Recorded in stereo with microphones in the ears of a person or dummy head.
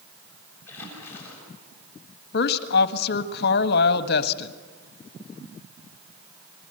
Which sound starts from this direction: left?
A woman speaking, at 2.3 s.